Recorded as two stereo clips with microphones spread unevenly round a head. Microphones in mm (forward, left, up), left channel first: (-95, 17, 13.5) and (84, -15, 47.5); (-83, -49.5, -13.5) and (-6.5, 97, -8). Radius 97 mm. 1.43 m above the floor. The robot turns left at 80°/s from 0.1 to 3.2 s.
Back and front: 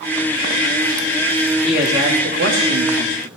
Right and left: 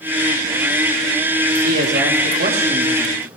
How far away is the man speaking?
About 3.5 m.